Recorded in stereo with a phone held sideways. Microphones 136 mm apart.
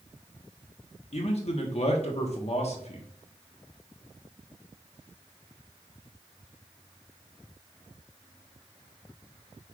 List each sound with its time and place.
1.1 s a man speaking: 50° left (ahead or behind), 1.0 m